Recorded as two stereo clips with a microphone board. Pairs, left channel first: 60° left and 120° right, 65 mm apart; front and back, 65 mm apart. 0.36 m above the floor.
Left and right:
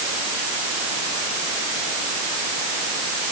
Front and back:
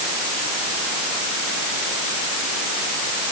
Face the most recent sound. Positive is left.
No sound to turn to.